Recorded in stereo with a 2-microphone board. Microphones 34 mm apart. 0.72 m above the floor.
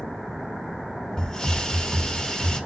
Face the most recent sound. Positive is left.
turn(degrees=20)  # may be behind; listen again after turning